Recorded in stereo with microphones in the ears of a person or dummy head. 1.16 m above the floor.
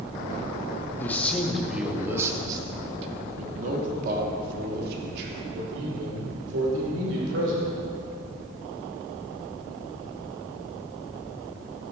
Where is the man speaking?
10° left (ahead or behind), 1.5 m; by 7.7 s 80° right, 3.5 m.